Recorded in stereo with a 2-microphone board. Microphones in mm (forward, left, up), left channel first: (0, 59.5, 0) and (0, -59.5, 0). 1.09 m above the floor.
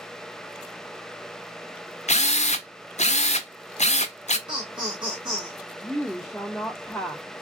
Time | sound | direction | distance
2.1 | a drill | 85° left | 0.5 m
4.5 | laughter | 40° right (ahead or behind) | 0.9 m
5.8 | a woman speaking | centre (ahead or behind) | 0.5 m